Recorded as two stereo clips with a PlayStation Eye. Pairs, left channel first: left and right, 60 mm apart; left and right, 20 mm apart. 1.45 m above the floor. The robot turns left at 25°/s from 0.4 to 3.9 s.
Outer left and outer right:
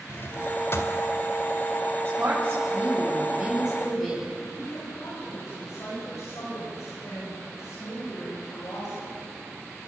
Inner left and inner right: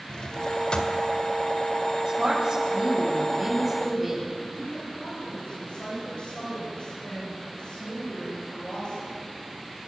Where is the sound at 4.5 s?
60° left (ahead or behind), 8.5 m.